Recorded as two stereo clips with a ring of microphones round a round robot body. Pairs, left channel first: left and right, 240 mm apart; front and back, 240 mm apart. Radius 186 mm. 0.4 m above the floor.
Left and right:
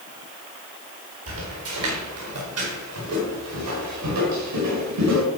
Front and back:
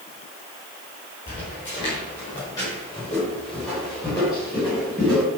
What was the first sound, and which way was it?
Footsteps, 70° right.